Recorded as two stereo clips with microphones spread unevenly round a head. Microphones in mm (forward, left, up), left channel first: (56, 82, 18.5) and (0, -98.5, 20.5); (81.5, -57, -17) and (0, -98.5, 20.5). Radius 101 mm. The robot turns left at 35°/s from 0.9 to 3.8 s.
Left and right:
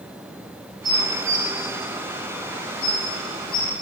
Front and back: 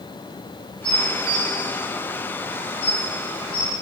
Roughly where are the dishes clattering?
Behind right.